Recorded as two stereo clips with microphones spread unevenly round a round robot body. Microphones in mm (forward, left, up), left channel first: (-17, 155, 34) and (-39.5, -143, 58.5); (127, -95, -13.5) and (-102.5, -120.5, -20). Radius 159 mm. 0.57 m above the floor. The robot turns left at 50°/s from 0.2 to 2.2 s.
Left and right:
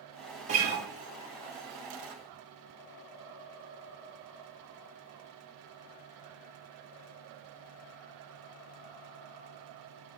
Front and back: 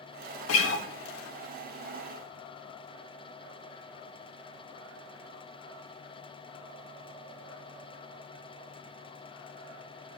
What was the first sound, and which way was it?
A guitar, 25° right.